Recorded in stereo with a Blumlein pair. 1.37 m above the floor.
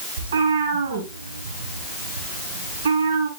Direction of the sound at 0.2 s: 70° right.